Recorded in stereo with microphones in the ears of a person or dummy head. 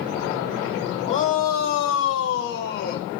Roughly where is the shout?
Left.